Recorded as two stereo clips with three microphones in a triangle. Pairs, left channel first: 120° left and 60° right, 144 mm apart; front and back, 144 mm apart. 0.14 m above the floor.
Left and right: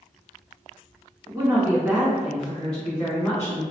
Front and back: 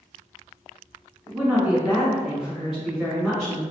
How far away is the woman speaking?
About 1.7 m.